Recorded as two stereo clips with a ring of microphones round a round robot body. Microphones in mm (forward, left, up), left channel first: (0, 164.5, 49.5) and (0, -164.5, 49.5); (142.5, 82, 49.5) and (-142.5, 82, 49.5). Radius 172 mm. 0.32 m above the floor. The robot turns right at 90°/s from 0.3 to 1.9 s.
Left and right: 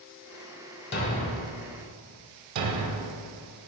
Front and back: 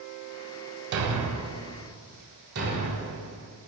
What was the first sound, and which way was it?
A thud, 150° left.